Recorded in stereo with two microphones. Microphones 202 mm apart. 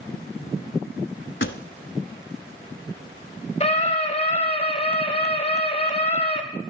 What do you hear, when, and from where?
1.4 s a pop: 75° left (ahead or behind), 0.9 m
3.6 s a scream: 30° left (ahead or behind), 1.8 m